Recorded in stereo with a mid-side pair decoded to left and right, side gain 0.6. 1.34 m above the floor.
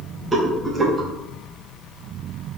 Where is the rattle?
20° right, 1.1 m.